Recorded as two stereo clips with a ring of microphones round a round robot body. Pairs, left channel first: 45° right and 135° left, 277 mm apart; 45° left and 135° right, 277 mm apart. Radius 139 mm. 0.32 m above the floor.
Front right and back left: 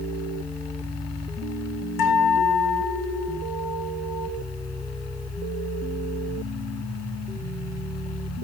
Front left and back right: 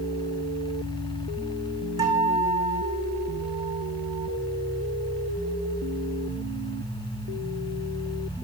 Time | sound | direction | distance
2.0 | a guitar | 60° right | 6.5 m